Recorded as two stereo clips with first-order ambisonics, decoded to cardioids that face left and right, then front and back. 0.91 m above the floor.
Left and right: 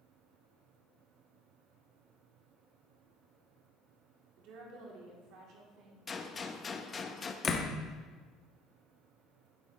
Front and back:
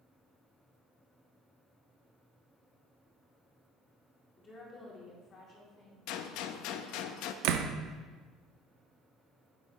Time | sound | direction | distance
4.4 | a woman speaking | 70° right | 2.5 m
6.1 | a gunshot | 15° left | 0.6 m
7.4 | a door slam | 160° left | 0.8 m